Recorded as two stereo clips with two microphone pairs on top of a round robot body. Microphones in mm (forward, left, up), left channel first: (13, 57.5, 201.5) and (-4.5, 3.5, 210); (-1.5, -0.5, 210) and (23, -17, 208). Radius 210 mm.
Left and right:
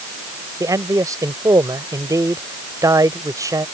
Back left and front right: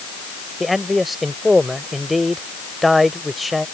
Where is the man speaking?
120° right.